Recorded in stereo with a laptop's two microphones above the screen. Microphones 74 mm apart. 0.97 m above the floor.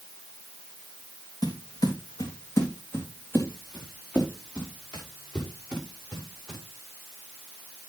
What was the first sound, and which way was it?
Footsteps, 65° left (ahead or behind).